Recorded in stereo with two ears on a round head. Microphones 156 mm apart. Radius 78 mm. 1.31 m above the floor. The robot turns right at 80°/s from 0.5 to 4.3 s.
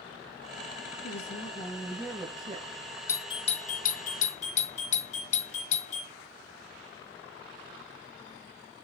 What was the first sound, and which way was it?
A woman speaking, 95° left.